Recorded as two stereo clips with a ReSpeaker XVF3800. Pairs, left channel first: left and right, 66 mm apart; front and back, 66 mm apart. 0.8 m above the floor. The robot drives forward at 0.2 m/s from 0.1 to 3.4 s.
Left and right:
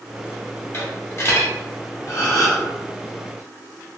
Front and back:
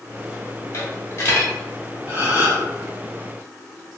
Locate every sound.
0.7 s a dropped coin: 40° left, 1.1 m; by 1.5 s 45° left, 1.0 m
2.1 s a gasp: 120° left, 1.4 m